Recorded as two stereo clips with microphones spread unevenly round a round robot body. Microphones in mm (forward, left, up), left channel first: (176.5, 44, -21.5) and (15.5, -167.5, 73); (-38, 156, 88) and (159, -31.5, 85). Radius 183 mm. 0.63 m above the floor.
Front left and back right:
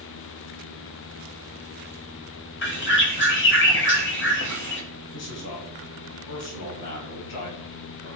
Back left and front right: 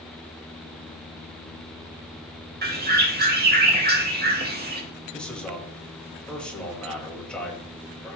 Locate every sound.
2.6 s a bird: 10° left, 2.5 m
5.1 s a man speaking: 50° left, 3.5 m